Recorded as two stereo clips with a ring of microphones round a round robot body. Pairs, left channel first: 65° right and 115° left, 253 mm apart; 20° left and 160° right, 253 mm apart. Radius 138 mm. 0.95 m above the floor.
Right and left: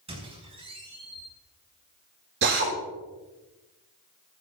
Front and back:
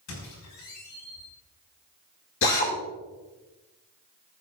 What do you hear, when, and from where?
0.1 s a squeak: 45° left, 6 m
2.4 s a drill: 65° left, 7 m